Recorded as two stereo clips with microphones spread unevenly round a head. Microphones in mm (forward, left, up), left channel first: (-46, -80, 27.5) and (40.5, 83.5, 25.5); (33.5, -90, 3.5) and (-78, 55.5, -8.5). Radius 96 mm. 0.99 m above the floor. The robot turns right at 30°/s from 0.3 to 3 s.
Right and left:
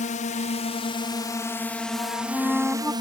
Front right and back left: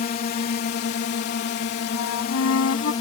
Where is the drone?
80° right; by 3.0 s straight ahead.